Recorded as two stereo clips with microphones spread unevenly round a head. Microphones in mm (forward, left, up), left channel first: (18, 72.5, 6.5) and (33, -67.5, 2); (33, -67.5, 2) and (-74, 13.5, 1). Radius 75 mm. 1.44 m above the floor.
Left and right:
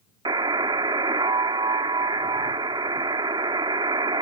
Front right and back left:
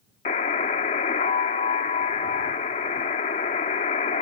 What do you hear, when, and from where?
0.2 s a buzzer: 30° right